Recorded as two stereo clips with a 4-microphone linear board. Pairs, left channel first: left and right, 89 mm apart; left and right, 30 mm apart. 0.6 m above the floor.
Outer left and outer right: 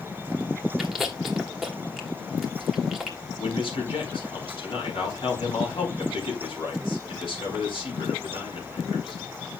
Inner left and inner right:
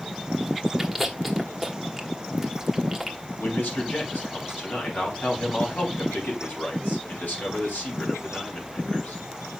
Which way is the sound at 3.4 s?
80° left.